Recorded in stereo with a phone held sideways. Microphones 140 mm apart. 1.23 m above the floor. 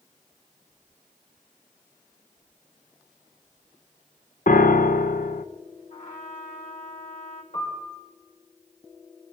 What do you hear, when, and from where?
4.5 s a piano: 80° left, 0.6 m
5.9 s a trumpet: 70° left (ahead or behind), 2.5 m
7.5 s a piano: 65° left (ahead or behind), 4.5 m